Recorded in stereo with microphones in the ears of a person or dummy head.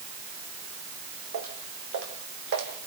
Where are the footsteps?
70° right (ahead or behind), 4.5 m; by 2.7 s 60° right (ahead or behind), 4 m.